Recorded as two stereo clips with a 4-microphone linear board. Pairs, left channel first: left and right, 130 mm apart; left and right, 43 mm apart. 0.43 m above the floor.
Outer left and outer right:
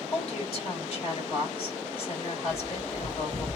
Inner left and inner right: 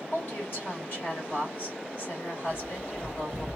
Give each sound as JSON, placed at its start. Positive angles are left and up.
{"t": 0.1, "sound": "a woman speaking", "side_deg": 40, "distance_m": 1.7}
{"t": 2.5, "sound": "a bird", "side_deg": -5, "distance_m": 1.4}